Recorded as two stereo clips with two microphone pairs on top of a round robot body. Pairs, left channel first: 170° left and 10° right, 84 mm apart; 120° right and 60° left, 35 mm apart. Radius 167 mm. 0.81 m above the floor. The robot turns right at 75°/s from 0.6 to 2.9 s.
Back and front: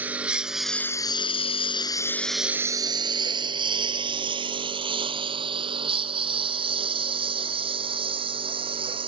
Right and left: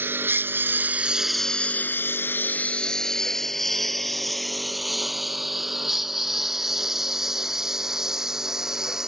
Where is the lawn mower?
65° left; by 9.1 s 15° right.